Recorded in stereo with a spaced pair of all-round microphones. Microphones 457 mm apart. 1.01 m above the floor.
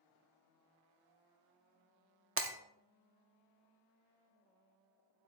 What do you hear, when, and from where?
2.4 s breaking glass: 30° right (ahead or behind), 0.6 m